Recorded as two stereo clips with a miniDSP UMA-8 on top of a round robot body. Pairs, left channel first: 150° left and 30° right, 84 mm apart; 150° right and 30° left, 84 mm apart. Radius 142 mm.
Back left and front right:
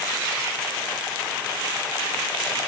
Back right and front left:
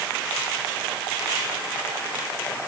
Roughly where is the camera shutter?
No camera shutter in this recording.